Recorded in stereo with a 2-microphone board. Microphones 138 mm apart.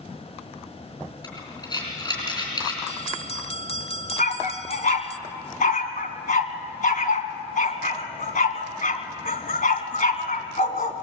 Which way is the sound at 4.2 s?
75° left (ahead or behind).